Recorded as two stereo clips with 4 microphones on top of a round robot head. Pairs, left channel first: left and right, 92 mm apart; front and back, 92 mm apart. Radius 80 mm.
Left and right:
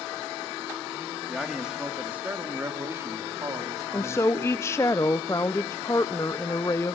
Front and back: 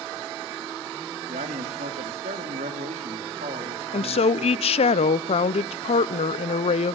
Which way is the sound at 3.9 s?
20° left.